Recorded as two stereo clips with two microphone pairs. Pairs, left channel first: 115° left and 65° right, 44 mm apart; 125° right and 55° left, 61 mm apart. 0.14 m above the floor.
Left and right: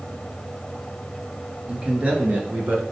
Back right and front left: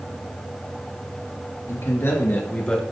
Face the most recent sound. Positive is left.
turn(degrees=-55)